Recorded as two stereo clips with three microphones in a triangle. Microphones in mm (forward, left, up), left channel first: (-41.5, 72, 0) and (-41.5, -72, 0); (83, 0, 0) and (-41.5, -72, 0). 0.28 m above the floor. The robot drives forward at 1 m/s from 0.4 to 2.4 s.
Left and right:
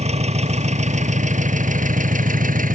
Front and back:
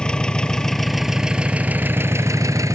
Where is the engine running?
55° right; by 2.8 s 80° right.